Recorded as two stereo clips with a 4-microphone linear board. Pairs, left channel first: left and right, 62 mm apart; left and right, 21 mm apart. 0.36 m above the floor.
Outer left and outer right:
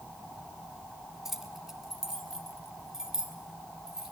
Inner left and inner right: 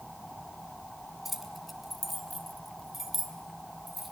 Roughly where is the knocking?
No knocking in this recording.